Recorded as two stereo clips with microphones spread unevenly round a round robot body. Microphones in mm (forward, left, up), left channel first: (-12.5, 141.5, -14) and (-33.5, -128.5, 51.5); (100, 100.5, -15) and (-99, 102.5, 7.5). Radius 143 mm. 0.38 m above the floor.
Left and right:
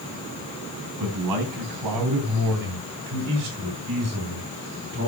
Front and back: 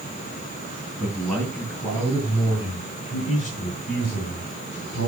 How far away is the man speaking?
About 4.5 m.